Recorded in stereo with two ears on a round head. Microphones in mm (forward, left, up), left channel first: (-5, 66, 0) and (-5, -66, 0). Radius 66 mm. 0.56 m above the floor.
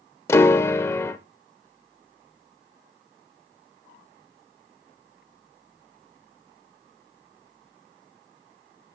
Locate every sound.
0.3 s a piano: 20° left (ahead or behind), 0.6 m